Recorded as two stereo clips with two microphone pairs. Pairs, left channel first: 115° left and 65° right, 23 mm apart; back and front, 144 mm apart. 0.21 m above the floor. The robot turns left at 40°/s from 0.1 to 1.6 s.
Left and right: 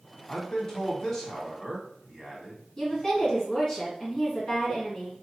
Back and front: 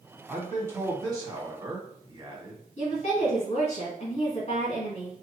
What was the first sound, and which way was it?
A man speaking, 75° left.